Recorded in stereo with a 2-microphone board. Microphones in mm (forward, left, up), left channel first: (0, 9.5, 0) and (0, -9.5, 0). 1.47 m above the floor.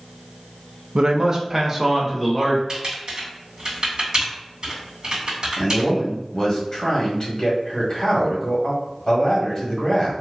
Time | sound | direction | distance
0.9 | a man speaking | 55° right (ahead or behind) | 0.5 m
2.7 | typing on a keyboard | 40° right (ahead or behind) | 1.9 m
5.6 | a man speaking | 30° left (ahead or behind) | 1.7 m